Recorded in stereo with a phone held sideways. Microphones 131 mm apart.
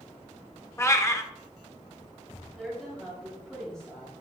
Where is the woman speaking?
5° left (ahead or behind), 3.5 m.